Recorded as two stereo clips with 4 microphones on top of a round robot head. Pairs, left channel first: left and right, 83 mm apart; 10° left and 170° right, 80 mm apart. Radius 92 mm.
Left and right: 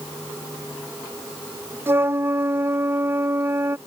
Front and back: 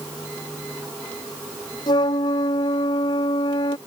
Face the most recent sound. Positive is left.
turn(degrees=-30)